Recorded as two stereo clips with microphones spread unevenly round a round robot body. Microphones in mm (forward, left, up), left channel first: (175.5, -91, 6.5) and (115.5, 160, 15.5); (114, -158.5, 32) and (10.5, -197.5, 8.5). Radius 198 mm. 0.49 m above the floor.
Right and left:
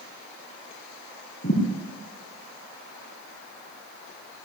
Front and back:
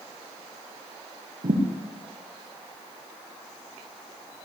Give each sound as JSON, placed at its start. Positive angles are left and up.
{"t": 1.4, "sound": "a thud", "azimuth_deg": -140, "distance_m": 6.5}